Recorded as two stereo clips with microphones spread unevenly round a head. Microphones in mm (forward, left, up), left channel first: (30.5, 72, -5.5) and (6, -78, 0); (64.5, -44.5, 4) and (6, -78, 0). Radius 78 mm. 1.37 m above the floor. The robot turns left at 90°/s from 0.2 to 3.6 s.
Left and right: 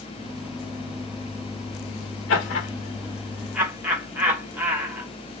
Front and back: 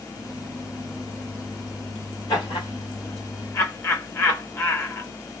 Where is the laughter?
100° left, 1.9 m; by 5.1 s 20° right, 1.9 m.